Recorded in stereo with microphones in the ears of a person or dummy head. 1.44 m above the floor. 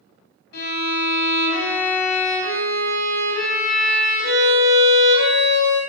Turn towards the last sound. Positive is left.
turn(degrees=60)  # may be behind; listen again after turning